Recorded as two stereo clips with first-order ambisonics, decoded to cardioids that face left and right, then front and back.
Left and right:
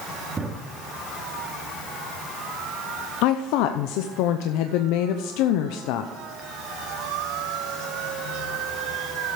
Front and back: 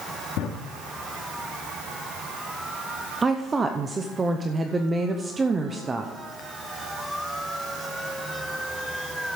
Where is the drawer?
15° right, 1.8 m.